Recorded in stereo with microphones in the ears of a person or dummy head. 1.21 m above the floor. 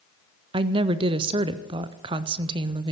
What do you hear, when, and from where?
0.5 s a woman speaking: 25° right (ahead or behind), 0.6 m